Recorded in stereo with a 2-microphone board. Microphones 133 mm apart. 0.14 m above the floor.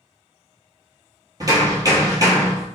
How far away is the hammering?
About 1.0 m.